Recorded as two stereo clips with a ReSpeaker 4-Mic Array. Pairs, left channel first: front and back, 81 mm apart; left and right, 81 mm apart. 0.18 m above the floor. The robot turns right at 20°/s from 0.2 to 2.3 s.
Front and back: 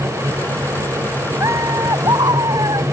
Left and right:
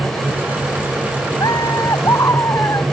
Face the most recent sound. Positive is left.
turn(degrees=145)